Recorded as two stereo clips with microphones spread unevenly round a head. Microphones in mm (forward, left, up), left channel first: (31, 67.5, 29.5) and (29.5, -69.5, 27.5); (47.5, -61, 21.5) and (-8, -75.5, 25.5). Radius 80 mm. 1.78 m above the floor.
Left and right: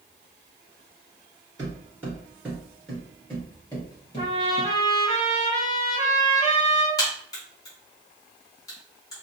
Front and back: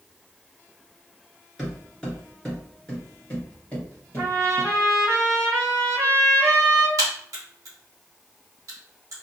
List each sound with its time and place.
1.6 s footsteps: 65° right, 1.9 m; by 4.7 s 80° left, 2 m
4.2 s a trumpet: 105° left, 1.8 m
7.0 s a crack: 155° left, 1.0 m